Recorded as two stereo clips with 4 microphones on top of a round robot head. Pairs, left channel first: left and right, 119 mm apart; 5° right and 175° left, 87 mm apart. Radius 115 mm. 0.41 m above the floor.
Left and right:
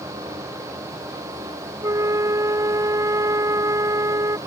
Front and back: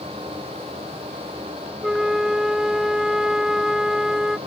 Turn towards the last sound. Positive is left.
turn(degrees=-110)